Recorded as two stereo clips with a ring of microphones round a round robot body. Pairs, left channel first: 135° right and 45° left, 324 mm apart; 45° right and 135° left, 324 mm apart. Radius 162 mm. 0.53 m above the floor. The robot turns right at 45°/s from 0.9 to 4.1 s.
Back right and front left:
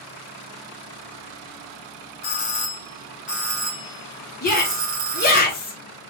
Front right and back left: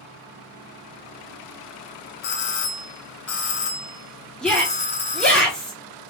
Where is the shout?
130° right, 1.0 m.